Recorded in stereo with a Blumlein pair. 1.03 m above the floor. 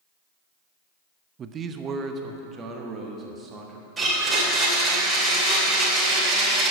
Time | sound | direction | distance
1.4 | a man speaking | 25° right | 0.5 m
4.0 | a blender | 15° right | 2.5 m